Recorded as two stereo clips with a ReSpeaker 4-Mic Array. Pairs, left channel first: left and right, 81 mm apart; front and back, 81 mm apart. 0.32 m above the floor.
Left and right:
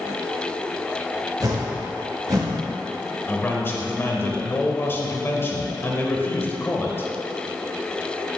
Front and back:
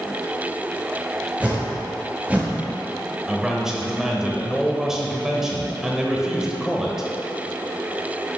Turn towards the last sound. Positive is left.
turn(degrees=100)